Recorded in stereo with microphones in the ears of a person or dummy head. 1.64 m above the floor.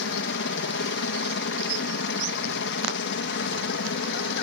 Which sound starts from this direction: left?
A helicopter, at 0.0 s.